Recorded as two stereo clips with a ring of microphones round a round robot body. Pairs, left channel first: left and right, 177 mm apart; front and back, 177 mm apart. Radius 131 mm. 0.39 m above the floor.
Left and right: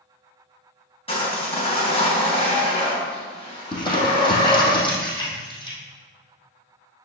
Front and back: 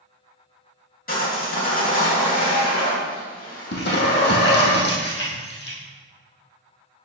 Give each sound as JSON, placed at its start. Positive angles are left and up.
{"t": 1.1, "sound": "sawing", "azimuth_deg": 35, "distance_m": 3.5}
{"t": 3.7, "sound": "crumpling", "azimuth_deg": 25, "distance_m": 3.0}